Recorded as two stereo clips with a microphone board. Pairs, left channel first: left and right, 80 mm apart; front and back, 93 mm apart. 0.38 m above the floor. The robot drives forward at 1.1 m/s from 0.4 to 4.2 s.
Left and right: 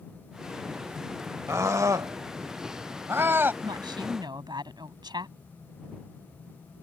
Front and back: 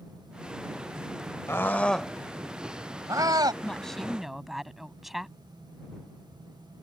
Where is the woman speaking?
80° right; by 5.4 s 95° right.